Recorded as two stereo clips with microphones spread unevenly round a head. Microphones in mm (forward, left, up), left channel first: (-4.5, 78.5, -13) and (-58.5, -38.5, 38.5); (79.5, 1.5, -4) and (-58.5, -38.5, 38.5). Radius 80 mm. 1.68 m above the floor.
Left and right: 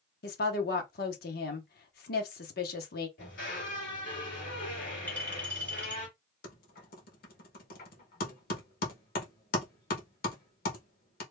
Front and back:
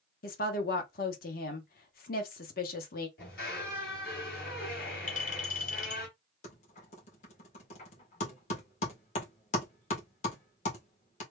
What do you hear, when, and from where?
0.2 s a woman speaking: 50° left, 1.0 m
3.2 s a squeak: 40° left, 2 m
5.1 s a clink: 25° right, 1.4 m
6.4 s typing on a keyboard: 65° left, 1.3 m